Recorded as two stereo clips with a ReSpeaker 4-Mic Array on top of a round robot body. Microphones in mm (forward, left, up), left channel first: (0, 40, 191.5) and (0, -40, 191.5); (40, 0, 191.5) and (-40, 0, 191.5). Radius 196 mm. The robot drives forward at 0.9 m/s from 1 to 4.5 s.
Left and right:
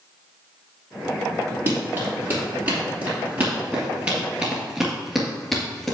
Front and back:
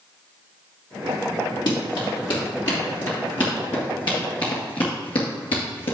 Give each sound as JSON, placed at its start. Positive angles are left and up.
{"t": 1.7, "sound": "running footsteps", "azimuth_deg": -30, "distance_m": 3.0}